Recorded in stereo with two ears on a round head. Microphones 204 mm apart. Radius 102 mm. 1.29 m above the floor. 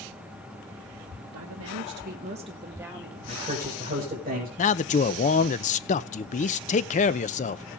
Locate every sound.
1.3 s a woman speaking: 75° right (ahead or behind), 1.5 m; by 3.2 s 5° right (ahead or behind), 2 m
3.3 s a man speaking: 25° right (ahead or behind), 5 m
4.6 s a man speaking: 35° left (ahead or behind), 0.6 m